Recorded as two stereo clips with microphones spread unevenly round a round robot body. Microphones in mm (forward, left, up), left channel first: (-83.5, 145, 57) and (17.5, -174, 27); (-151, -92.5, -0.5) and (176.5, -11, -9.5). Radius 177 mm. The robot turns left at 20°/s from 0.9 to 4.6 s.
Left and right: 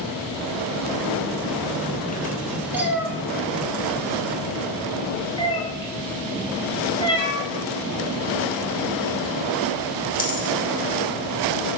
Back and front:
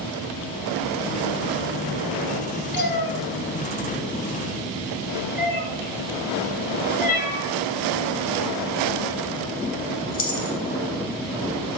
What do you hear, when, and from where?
2.7 s a cat meowing: 160° right, 0.9 m; by 10.6 s 160° left, 0.9 m